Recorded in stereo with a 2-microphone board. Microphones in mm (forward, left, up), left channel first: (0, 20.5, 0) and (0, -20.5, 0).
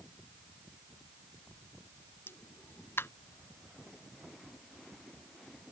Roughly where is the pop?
Left.